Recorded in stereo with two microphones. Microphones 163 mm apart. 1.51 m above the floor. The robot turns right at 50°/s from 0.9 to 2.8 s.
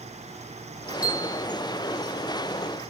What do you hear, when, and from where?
1.0 s a bell: 10° right (ahead or behind), 1.4 m; by 1.4 s 15° right (ahead or behind), 1.4 m